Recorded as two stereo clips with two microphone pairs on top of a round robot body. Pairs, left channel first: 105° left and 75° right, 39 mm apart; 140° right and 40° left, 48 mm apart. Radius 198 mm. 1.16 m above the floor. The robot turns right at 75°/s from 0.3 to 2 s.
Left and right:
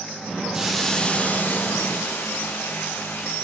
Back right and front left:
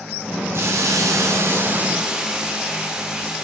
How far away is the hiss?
About 2.0 m.